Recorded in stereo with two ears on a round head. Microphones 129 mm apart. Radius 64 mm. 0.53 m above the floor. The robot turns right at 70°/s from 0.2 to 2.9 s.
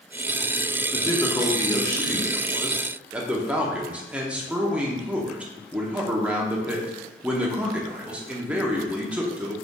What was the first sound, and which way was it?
A man speaking, 20° left (ahead or behind).